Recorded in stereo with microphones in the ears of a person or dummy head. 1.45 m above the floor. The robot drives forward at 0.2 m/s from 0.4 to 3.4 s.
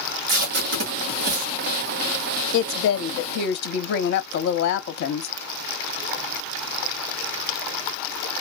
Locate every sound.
0.3 s tape being pulled: 70° right (ahead or behind), 1.4 m; by 1.5 s 60° right (ahead or behind), 1.5 m
2.5 s a woman speaking: 70° left (ahead or behind), 0.6 m; by 5.3 s 60° left (ahead or behind), 0.7 m